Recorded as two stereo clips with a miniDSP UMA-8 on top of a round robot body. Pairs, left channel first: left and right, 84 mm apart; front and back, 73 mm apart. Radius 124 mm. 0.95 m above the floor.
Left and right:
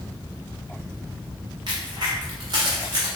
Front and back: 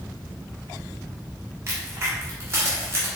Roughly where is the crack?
Behind right.